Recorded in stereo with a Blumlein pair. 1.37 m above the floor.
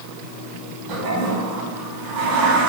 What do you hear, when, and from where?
0.9 s a toilet flushing: 40° right, 1.6 m